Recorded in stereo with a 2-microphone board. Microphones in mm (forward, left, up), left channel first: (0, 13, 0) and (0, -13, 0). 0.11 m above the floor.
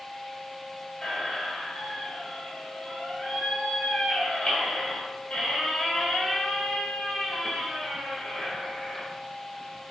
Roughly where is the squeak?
Left.